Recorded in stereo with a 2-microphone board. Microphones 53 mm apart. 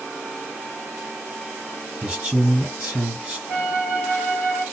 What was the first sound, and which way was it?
A man speaking, 15° right (ahead or behind).